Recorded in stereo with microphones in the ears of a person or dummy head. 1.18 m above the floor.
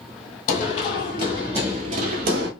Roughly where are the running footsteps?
Left.